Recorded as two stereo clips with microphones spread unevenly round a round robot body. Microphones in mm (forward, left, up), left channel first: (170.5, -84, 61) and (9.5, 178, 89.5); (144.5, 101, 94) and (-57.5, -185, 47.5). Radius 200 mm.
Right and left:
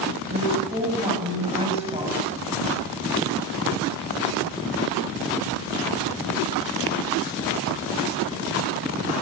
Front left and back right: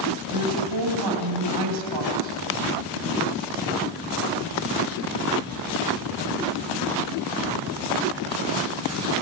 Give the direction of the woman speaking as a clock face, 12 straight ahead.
6 o'clock.